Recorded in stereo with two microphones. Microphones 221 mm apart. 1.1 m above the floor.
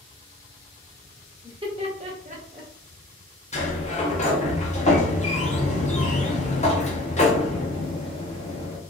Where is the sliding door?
30° left (ahead or behind), 0.6 m.